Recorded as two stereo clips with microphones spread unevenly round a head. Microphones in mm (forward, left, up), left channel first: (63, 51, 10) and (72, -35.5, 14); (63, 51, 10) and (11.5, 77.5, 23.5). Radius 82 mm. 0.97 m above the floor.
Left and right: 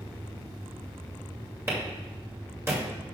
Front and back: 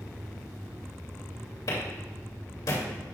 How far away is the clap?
About 3 m.